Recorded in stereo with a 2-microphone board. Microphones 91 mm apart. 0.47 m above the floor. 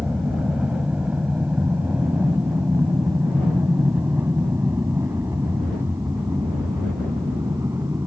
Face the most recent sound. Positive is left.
turn(degrees=-30)  # may be behind; listen again after turning